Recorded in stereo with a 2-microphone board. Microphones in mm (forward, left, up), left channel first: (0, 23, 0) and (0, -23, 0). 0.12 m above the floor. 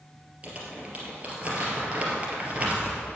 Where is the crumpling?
30° right (ahead or behind), 2.5 m.